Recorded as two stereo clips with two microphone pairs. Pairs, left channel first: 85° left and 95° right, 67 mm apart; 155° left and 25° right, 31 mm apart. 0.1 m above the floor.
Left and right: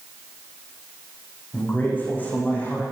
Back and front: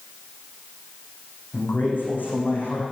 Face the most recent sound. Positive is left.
turn(degrees=150)